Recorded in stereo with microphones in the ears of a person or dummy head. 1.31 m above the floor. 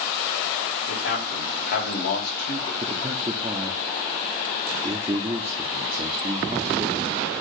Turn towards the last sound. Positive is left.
turn(degrees=-20)  # may be behind; listen again after turning